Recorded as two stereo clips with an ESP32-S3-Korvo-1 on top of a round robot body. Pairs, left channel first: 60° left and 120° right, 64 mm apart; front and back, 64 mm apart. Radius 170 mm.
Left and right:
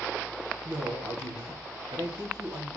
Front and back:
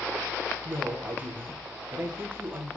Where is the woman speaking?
125° right, 2.5 m.